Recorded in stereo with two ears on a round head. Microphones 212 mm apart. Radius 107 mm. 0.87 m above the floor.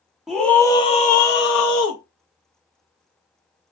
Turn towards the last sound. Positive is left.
turn(degrees=70)  # may be behind; listen again after turning